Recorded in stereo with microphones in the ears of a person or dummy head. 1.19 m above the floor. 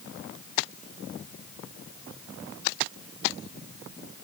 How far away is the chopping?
No chopping in this recording.